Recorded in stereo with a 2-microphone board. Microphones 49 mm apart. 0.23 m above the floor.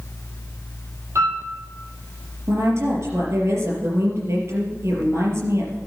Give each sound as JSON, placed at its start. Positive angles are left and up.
{"t": 1.1, "sound": "a piano", "side_deg": -70, "distance_m": 6.5}
{"t": 2.5, "sound": "a woman speaking", "side_deg": -65, "distance_m": 4.0}